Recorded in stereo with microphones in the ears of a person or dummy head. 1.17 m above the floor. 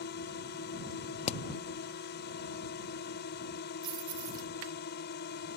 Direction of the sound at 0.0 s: 55° left (ahead or behind).